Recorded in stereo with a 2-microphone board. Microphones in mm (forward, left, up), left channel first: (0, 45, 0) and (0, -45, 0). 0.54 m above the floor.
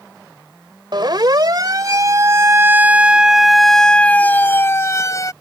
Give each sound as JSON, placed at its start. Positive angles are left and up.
{"t": 0.9, "sound": "a siren", "side_deg": -55}